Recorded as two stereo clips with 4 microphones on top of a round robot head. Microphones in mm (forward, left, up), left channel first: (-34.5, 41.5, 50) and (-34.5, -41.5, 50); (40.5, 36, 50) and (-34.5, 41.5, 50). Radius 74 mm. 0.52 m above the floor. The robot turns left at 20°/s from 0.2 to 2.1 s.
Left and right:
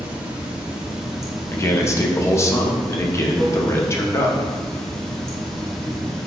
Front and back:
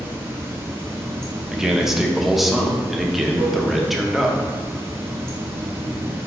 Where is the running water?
155° right, 1.1 m; by 6.3 s 170° left, 1.1 m.